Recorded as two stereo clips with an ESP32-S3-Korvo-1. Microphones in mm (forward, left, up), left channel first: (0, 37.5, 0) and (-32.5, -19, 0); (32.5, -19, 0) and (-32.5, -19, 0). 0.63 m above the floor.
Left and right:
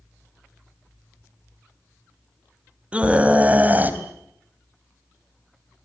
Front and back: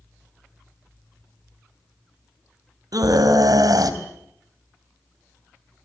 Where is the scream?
170° left, 3.5 m; by 5.9 s 145° right, 2 m.